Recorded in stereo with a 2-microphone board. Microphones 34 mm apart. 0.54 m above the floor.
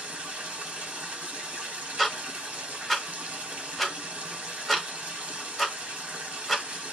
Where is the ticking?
Centre (ahead or behind), 0.8 m.